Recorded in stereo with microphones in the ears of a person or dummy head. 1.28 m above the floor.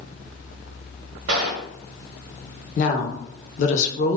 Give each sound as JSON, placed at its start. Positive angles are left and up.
{"t": 1.3, "sound": "a gunshot", "side_deg": -70, "distance_m": 0.8}
{"t": 2.8, "sound": "a woman speaking", "side_deg": 45, "distance_m": 0.7}